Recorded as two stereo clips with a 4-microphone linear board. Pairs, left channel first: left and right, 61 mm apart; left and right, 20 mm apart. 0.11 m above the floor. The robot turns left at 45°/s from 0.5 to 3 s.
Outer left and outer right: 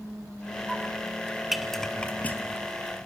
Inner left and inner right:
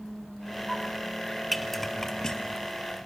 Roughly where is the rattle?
Centre.